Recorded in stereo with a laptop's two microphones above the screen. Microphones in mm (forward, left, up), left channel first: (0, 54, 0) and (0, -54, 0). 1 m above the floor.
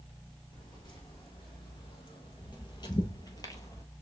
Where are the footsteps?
40° left (ahead or behind), 2 m; by 3.9 s 30° left (ahead or behind), 1.2 m.